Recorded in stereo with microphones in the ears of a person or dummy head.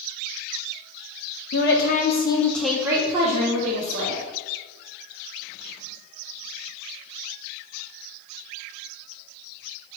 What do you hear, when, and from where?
1.5 s a woman speaking: 50° left (ahead or behind), 0.9 m; by 4.2 s 60° right (ahead or behind), 1.4 m